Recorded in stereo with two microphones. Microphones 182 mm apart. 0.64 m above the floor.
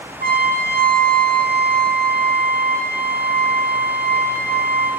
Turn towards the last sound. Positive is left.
turn(degrees=-55)  # may be behind; listen again after turning